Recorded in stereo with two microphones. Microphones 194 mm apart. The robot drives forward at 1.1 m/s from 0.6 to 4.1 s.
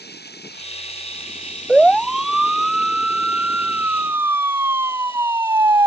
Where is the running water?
60° left (ahead or behind); by 5.9 s 30° left (ahead or behind).